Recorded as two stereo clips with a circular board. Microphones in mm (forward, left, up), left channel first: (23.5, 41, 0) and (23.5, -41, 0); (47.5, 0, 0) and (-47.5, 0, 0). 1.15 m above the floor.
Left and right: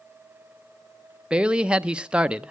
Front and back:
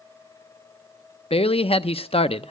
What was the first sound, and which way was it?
A man speaking, 10° right.